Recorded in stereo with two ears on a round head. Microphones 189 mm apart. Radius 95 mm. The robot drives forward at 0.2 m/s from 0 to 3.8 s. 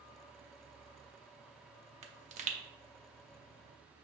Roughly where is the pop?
Right.